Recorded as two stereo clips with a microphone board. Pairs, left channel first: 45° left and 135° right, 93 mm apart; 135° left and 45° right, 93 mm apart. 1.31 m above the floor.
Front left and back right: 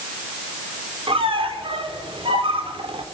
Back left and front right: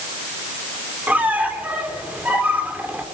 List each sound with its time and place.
1.1 s a squeak: 120° right, 3 m